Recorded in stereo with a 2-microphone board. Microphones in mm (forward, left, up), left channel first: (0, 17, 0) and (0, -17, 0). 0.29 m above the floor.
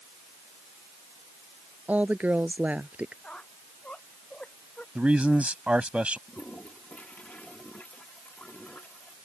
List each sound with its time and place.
1.9 s a woman speaking: 50° right (ahead or behind)
3.2 s a squeak: 30° left (ahead or behind)
5.0 s a man speaking: 40° right (ahead or behind)
6.3 s a toilet flushing: 45° left (ahead or behind)